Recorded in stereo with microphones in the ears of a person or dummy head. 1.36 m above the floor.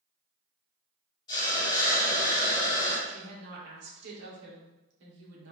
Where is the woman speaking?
70° right (ahead or behind), 1.8 m.